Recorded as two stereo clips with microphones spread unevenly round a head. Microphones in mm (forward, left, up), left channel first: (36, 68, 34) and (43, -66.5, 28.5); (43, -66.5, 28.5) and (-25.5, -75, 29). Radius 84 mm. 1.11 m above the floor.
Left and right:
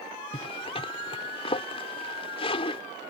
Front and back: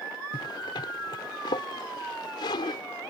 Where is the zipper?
45° left.